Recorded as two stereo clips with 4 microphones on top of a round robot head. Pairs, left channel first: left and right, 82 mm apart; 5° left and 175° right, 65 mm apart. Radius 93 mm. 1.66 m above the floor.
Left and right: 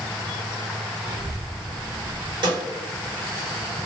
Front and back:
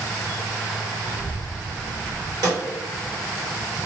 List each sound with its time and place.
1.0 s a child speaking: 70° right, 0.8 m; by 2.3 s 55° left, 0.8 m
2.4 s a snare drum: 130° right, 0.9 m